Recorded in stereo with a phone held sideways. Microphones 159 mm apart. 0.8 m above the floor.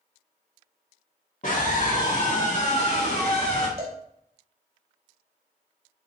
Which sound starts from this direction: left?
A scream, at 1.4 s.